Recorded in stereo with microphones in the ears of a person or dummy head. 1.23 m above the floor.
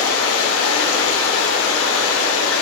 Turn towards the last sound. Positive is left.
turn(degrees=80)